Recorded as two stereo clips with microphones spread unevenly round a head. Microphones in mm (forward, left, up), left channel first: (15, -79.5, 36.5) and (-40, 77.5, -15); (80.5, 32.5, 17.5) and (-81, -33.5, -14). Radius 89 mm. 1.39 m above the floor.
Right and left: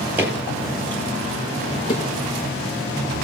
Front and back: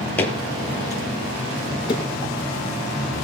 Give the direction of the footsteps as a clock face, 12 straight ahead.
12 o'clock.